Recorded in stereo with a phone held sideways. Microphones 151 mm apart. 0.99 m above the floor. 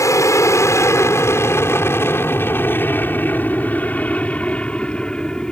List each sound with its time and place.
0.0 s an aircraft: 20° left (ahead or behind); by 5.5 s 5° left (ahead or behind)